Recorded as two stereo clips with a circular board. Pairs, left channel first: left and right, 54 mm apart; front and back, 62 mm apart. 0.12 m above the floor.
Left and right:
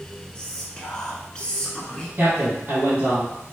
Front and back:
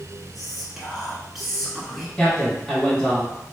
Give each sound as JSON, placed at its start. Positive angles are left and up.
{"t": 0.3, "sound": "whispering", "azimuth_deg": 100, "distance_m": 1.1}
{"t": 2.2, "sound": "a man speaking", "azimuth_deg": -70, "distance_m": 1.6}